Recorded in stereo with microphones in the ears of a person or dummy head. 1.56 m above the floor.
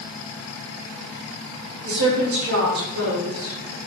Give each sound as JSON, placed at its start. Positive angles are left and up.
{"t": 1.8, "sound": "a woman speaking", "side_deg": -75, "distance_m": 4.0}